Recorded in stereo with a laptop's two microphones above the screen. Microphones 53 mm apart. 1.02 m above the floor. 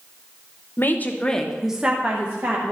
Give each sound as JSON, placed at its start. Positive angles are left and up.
{"t": 0.8, "sound": "a woman speaking", "side_deg": 45, "distance_m": 0.7}